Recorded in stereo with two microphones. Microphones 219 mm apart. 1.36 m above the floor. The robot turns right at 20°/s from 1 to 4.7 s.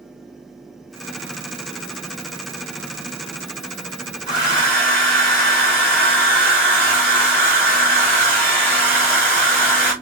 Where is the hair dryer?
20° left (ahead or behind), 1.5 m; by 9.9 s 10° left (ahead or behind), 1.5 m.